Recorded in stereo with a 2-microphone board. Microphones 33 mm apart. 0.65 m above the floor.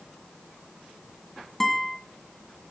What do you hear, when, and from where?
1.6 s a guitar: 10° left (ahead or behind), 1.8 m